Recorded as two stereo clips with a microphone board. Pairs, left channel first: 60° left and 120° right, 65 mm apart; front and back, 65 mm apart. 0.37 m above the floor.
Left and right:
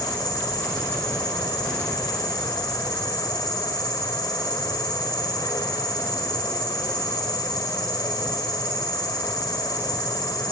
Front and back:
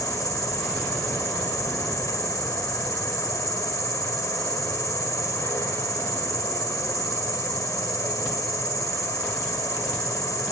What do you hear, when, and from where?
0.0 s an insect: 35° left, 4.5 m